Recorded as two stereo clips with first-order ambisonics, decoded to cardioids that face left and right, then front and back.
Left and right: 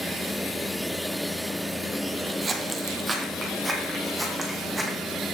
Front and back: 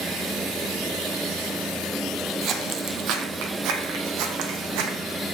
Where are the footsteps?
150° right, 1.1 m; by 5.0 s 175° right, 2 m.